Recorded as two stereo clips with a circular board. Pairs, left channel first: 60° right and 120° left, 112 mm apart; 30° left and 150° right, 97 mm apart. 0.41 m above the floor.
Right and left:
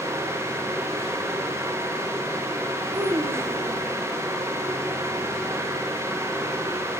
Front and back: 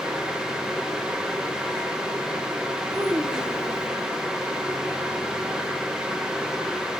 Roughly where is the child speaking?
Behind.